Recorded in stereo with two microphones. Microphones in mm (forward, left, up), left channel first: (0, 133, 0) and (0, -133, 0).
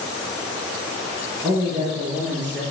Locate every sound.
1.4 s a man speaking: 15° right (ahead or behind), 2 m; by 2.6 s 5° right (ahead or behind), 2.5 m